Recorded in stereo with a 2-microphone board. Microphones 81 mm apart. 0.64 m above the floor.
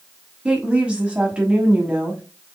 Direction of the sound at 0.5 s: 15° right (ahead or behind).